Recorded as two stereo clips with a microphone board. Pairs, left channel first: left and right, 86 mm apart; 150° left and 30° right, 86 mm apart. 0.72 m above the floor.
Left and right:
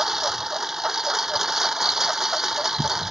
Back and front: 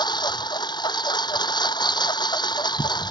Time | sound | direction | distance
0.0 | a lawn mower | 175° right | ?